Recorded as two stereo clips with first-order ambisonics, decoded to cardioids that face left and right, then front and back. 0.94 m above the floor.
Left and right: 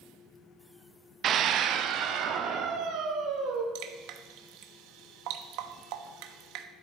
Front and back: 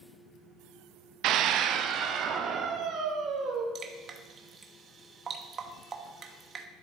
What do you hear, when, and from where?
1.2 s a scream: 145° right, 0.6 m; by 3.6 s 125° right, 2.5 m
3.8 s dripping: 115° right, 0.9 m